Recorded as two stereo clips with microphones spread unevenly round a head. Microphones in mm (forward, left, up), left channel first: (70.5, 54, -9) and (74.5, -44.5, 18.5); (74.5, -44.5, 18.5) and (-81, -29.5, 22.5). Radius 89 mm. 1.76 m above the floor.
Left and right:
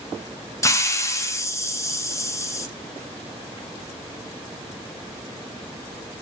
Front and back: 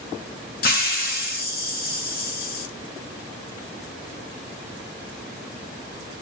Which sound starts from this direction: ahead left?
A hiss, at 0.6 s.